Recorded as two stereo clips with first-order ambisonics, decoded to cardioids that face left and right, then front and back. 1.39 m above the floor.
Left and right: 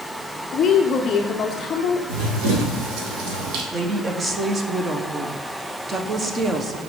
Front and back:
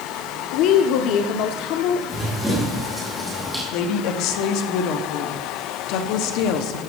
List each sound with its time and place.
0.5 s a woman speaking: 25° left, 0.6 m
2.1 s running footsteps: 90° right, 3 m
3.7 s a woman speaking: 20° right, 0.9 m